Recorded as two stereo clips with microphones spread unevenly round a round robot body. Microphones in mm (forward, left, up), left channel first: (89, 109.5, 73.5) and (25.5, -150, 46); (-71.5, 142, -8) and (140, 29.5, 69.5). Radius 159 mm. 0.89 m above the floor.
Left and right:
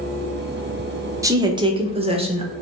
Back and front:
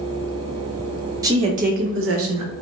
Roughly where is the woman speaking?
Behind right.